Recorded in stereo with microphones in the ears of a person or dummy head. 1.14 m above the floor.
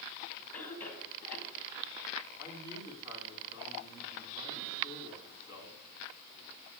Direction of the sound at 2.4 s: 20° right (ahead or behind).